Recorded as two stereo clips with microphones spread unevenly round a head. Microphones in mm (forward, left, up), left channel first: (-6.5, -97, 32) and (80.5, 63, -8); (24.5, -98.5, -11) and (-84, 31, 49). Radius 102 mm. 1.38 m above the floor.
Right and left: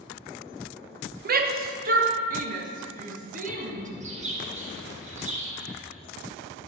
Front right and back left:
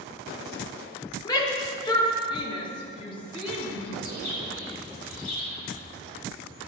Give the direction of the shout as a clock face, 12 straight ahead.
11 o'clock.